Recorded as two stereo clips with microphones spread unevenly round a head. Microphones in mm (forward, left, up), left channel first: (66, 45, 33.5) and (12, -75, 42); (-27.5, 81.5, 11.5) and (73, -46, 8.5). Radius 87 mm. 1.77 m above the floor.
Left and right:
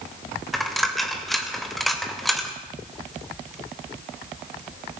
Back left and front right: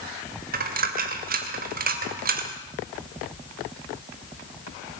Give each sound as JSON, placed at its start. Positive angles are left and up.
{"t": 0.5, "sound": "a dropped coin", "azimuth_deg": -25, "distance_m": 3.0}